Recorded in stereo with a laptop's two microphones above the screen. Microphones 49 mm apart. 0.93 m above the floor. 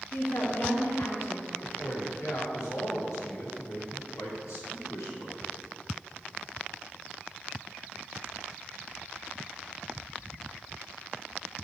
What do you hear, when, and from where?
0.1 s a woman speaking: 60° left (ahead or behind), 1.4 m
1.6 s a man speaking: 80° left, 1.8 m